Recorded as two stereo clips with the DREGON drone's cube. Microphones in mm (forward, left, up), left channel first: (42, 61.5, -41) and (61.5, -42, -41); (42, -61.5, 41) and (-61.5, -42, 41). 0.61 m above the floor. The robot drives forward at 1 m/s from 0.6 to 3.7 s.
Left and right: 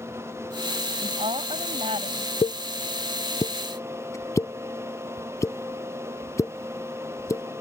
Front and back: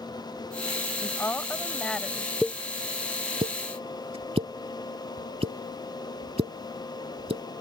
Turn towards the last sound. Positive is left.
turn(degrees=160)